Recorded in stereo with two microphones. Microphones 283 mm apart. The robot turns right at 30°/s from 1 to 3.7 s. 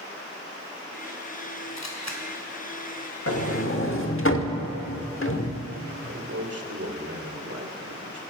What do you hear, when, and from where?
1.8 s a camera shutter: 70° left (ahead or behind), 2 m
3.3 s a sliding door: 55° left (ahead or behind), 1.1 m; by 5.6 s 50° left (ahead or behind), 1.1 m
6.0 s a man speaking: 60° right (ahead or behind), 2 m